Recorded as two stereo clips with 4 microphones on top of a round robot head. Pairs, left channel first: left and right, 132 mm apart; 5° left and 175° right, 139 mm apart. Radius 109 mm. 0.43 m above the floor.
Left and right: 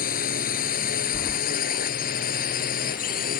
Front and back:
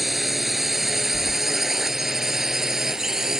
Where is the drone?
100° left.